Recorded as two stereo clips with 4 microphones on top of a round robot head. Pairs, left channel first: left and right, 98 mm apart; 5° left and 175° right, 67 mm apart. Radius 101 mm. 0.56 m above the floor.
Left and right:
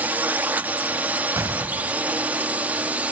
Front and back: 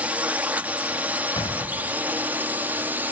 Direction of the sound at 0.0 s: 140° right.